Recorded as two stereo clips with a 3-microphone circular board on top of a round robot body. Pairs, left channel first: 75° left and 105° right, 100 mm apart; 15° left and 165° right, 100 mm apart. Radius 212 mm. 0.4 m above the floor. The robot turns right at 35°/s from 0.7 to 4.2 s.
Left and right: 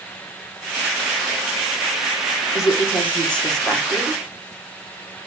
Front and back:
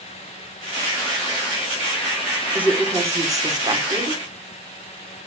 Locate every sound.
2.5 s a woman speaking: 120° left, 1.8 m; by 4.2 s straight behind, 1.8 m